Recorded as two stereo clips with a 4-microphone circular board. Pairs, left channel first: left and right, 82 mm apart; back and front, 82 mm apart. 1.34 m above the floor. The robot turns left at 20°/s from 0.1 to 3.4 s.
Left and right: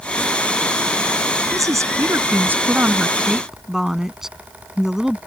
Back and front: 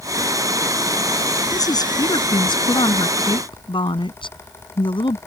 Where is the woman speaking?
135° right; by 5.2 s 175° right.